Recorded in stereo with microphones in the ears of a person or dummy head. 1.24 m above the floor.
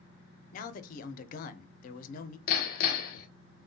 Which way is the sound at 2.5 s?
50° left (ahead or behind).